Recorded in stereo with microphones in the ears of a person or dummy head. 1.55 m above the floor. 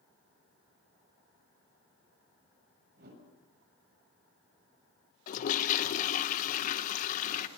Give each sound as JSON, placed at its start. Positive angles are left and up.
{"t": 3.0, "sound": "a whoosh", "side_deg": -60, "distance_m": 7.0}
{"t": 5.3, "sound": "a toilet flushing", "side_deg": 50, "distance_m": 1.0}